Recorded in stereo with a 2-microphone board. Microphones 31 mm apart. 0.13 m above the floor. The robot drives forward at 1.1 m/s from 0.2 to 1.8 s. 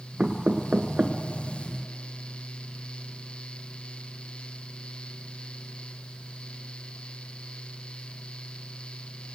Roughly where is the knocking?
Right.